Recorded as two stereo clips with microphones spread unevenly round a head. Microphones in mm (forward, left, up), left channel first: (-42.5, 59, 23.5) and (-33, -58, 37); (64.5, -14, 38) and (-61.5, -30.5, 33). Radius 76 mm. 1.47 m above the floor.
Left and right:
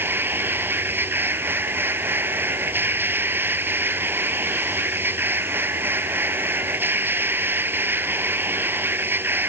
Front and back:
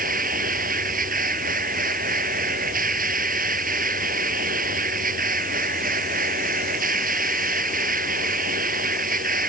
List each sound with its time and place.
0.0 s a machine running: 160° right